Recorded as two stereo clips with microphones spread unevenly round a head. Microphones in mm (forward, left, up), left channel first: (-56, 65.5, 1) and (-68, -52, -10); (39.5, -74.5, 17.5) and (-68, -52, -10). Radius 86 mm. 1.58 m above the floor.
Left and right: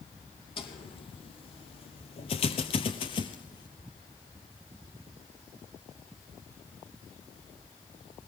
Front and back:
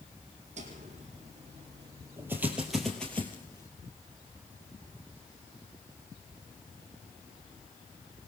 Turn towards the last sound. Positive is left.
turn(degrees=35)